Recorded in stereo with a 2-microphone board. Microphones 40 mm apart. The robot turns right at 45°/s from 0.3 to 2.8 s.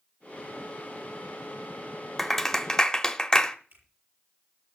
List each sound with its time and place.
2.2 s a clap: 5° left (ahead or behind), 1.0 m; by 3.6 s 15° left (ahead or behind), 1.0 m
3.7 s a finger snap: 65° right (ahead or behind), 7.5 m